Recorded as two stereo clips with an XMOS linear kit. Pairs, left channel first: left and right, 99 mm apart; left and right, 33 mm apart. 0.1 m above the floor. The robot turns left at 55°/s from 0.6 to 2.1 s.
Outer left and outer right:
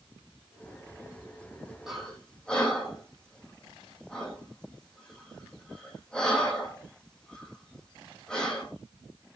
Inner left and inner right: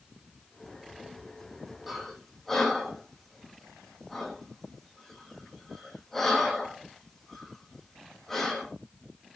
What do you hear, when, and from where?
1.9 s breathing: 5° right (ahead or behind), 2.5 m; by 8.7 s 10° left (ahead or behind), 2.5 m